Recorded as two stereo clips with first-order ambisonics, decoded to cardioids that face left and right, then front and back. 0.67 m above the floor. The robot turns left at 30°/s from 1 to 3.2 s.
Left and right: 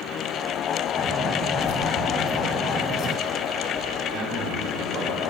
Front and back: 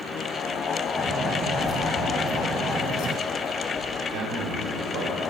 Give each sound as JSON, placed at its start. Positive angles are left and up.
{"t": 1.6, "sound": "keys jangling", "azimuth_deg": 90, "distance_m": 1.8}
{"t": 4.1, "sound": "a man speaking", "azimuth_deg": -145, "distance_m": 3.5}